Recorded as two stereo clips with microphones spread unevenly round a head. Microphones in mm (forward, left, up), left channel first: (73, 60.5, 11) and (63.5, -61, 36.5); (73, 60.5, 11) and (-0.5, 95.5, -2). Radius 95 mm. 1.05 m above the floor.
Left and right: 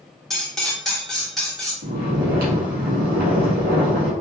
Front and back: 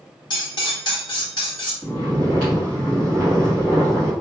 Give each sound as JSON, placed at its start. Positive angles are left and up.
{"t": 0.3, "sound": "cutlery clinking", "azimuth_deg": -5, "distance_m": 1.7}
{"t": 1.8, "sound": "snoring", "azimuth_deg": -110, "distance_m": 1.7}